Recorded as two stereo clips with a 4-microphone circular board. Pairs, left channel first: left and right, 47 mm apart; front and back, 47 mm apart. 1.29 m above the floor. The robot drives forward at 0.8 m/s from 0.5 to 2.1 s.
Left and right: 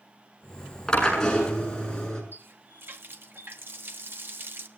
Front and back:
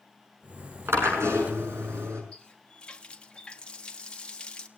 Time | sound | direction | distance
0.9 | a drill | 165° left | 6 m
2.3 | a running tap | 65° right | 1.0 m